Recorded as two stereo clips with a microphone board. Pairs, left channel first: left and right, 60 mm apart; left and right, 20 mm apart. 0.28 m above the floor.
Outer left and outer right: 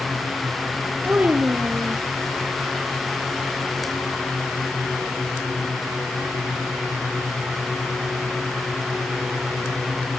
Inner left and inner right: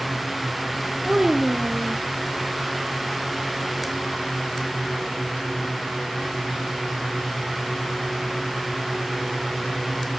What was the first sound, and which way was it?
A child speaking, 30° right (ahead or behind).